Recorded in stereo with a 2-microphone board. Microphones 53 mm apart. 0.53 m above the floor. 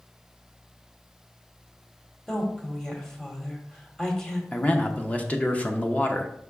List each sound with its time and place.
2.3 s a woman speaking: 15° left (ahead or behind), 1.6 m
4.5 s a man speaking: 25° left (ahead or behind), 0.9 m